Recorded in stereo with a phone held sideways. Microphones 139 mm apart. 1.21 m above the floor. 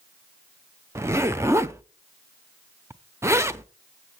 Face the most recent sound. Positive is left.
turn(degrees=-20)  # may be behind; listen again after turning